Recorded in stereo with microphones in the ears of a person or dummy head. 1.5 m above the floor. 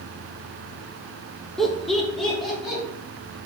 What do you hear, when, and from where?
1.6 s laughter: centre (ahead or behind), 0.6 m